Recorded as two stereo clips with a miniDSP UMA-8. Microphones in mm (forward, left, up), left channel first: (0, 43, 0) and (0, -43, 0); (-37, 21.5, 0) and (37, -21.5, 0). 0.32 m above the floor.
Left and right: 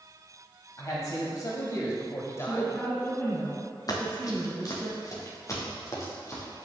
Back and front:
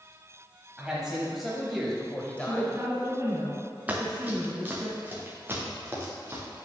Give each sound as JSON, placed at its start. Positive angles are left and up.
{"t": 0.8, "sound": "a man speaking", "azimuth_deg": 50, "distance_m": 1.6}
{"t": 2.4, "sound": "a woman speaking", "azimuth_deg": 30, "distance_m": 3.5}
{"t": 3.9, "sound": "running footsteps", "azimuth_deg": 45, "distance_m": 2.0}